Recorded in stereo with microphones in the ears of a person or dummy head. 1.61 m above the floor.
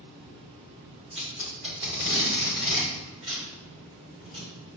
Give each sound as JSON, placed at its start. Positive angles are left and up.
{"t": 1.1, "sound": "tape being pulled", "side_deg": -35, "distance_m": 3.0}